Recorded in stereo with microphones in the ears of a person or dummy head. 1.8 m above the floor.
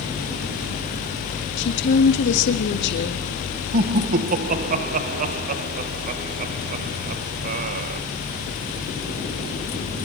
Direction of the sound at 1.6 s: 60° left (ahead or behind).